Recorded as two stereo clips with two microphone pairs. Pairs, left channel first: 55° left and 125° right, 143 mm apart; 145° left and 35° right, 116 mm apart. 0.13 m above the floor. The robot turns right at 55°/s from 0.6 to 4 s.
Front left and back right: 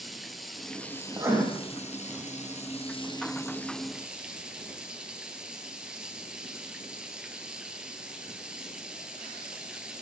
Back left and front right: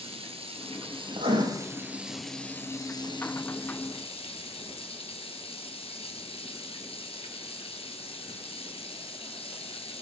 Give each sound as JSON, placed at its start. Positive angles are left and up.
{"t": 0.0, "sound": "running water", "azimuth_deg": -35, "distance_m": 1.7}
{"t": 1.1, "sound": "writing", "azimuth_deg": -65, "distance_m": 5.0}